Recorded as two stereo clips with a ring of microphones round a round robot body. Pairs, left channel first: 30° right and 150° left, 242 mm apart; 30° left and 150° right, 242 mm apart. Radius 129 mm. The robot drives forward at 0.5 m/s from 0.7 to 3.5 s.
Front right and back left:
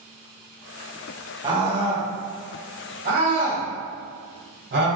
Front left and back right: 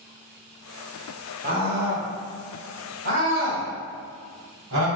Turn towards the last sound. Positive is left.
turn(degrees=-170)